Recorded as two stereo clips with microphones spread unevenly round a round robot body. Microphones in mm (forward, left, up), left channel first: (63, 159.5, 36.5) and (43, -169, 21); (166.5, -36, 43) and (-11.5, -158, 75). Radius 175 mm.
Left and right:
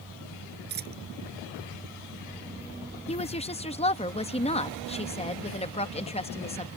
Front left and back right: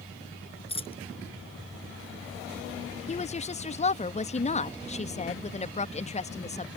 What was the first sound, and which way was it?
A dropped coin, 30° right.